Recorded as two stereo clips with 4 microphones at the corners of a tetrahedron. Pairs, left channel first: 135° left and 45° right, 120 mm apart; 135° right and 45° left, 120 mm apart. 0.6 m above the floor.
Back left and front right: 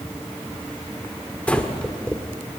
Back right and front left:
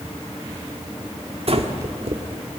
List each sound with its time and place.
1.5 s breathing: 55° left, 1.7 m